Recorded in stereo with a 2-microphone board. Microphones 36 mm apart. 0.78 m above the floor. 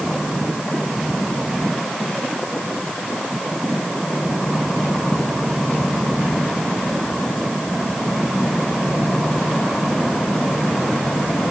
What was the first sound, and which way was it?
Only background noise.